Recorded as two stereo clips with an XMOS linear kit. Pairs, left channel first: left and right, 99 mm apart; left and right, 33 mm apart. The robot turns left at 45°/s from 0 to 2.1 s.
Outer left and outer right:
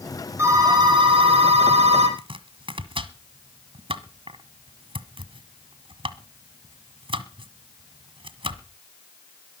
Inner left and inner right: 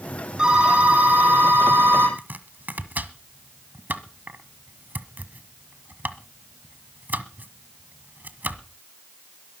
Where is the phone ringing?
25° right, 6 m; by 2.1 s 100° right, 6 m.